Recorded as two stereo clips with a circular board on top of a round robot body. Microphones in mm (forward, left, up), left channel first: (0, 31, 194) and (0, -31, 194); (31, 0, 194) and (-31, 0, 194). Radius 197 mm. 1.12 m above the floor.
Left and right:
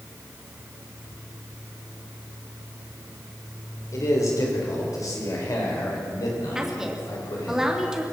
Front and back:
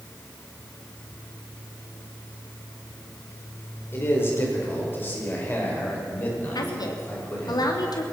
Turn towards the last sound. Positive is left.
turn(degrees=-10)